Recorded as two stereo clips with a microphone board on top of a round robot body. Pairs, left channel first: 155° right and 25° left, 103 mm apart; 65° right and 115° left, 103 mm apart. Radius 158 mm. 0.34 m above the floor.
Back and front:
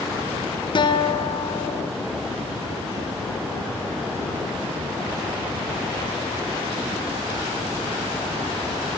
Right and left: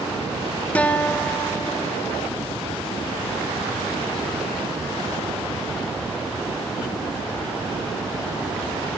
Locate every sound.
0.8 s a guitar: 140° right, 2 m